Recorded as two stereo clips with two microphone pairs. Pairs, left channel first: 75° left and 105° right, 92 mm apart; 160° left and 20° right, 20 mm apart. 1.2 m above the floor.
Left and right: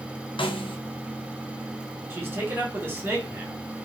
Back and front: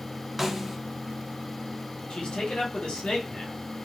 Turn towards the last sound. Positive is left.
turn(degrees=-175)